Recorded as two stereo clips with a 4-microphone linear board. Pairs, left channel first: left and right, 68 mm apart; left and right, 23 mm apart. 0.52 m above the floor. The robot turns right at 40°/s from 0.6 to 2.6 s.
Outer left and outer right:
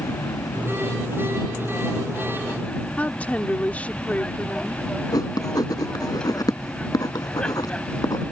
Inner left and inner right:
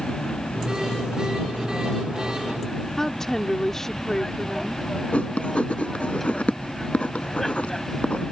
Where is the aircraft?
85° left; by 8.3 s 165° left.